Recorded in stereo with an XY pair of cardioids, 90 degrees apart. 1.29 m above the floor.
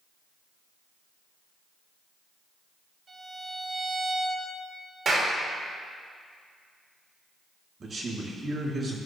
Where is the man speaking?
50° right, 2.5 m.